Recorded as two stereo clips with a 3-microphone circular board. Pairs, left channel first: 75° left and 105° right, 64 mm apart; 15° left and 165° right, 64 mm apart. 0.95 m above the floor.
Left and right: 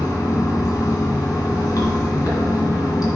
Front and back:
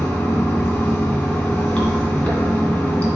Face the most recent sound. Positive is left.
turn(degrees=85)